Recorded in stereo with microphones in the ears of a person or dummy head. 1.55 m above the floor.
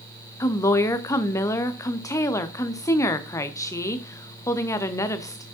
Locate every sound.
0.4 s a woman speaking: 20° left (ahead or behind), 0.6 m